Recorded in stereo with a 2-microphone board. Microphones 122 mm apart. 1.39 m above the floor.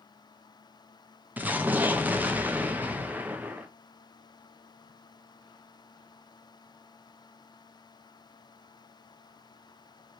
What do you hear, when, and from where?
1.4 s an explosion: 15° right (ahead or behind), 0.6 m